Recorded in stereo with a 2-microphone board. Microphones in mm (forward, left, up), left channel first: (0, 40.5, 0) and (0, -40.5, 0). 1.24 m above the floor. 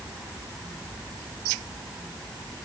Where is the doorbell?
No doorbell in this recording.